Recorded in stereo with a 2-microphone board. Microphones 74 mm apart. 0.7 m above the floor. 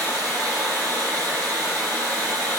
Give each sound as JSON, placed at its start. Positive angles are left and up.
{"t": 0.0, "sound": "running water", "side_deg": 30, "distance_m": 1.8}